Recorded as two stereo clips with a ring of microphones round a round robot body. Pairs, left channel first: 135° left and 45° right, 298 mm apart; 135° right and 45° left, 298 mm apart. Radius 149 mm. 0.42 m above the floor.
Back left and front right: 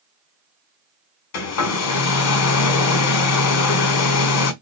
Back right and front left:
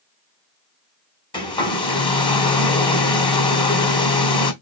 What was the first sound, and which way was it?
A hair dryer, 155° left.